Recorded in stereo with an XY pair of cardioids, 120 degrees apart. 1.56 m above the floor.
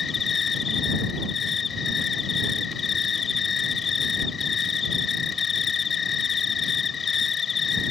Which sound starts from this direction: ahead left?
An insect, at 0.0 s.